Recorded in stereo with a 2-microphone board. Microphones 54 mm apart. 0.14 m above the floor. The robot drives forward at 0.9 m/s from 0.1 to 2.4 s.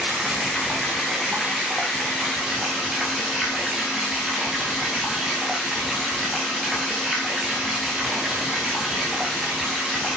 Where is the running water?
10° right (ahead or behind), 3 m; by 10.2 s 5° right (ahead or behind), 5 m.